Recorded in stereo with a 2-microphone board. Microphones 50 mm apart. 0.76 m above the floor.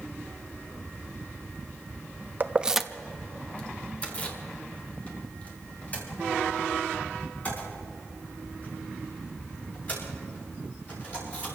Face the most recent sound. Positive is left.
turn(degrees=35)  # may be behind; listen again after turning